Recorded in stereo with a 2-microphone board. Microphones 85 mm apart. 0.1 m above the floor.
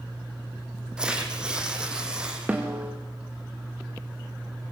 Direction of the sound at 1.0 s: 10° right (ahead or behind).